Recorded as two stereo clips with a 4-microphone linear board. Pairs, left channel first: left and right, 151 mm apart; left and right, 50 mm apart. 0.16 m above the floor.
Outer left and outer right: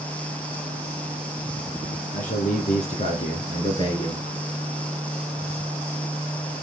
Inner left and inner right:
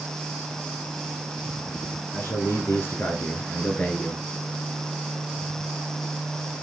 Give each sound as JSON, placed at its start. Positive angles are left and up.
{"t": 2.1, "sound": "a man speaking", "side_deg": 55, "distance_m": 2.5}